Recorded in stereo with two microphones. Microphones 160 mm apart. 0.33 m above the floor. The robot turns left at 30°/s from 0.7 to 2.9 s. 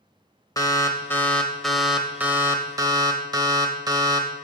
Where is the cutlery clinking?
I don't hear cutlery clinking.